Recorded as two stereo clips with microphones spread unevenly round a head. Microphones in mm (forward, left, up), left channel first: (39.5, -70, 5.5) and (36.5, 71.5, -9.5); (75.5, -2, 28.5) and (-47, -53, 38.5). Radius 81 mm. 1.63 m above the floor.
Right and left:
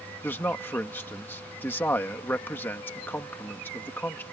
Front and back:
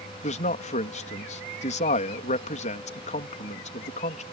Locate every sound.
0.2 s a man speaking: 15° right